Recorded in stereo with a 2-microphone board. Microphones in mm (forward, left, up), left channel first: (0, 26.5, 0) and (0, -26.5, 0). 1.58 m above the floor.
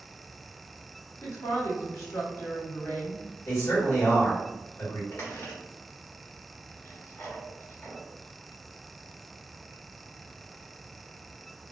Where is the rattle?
No rattle in this recording.